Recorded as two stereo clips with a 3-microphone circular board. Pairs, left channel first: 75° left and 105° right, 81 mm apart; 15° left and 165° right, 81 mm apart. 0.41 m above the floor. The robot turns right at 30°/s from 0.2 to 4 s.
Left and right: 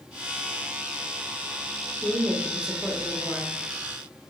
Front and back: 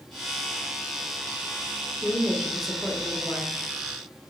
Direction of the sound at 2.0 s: 80° right.